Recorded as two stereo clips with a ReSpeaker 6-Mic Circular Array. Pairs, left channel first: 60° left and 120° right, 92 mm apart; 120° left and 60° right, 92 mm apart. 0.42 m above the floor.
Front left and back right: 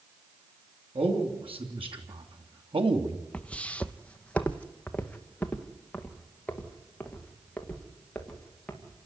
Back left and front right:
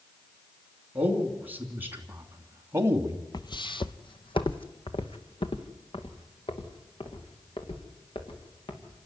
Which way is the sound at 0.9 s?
130° right.